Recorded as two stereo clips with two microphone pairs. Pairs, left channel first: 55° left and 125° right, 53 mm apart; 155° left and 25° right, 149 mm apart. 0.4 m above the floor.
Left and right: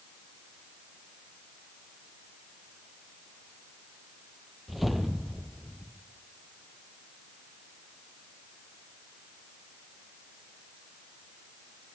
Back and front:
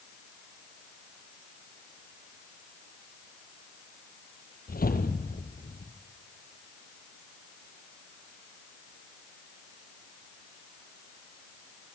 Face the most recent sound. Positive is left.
turn(degrees=150)